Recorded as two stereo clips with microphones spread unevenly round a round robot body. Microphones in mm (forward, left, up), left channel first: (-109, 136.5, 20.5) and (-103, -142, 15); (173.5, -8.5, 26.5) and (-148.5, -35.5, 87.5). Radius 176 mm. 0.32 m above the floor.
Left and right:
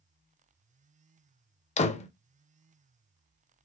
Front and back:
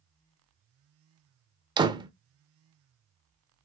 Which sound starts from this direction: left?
A door slam, at 1.8 s.